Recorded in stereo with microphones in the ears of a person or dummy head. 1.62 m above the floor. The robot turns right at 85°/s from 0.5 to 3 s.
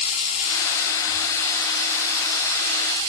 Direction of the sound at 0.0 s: 80° left.